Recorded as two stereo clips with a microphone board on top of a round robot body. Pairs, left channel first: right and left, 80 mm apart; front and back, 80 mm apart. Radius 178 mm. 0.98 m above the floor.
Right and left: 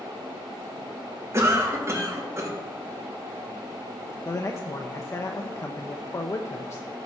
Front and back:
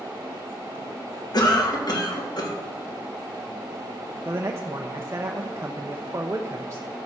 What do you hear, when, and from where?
1.3 s a cough: 35° left, 2.5 m
4.2 s a man speaking: 130° right, 1.0 m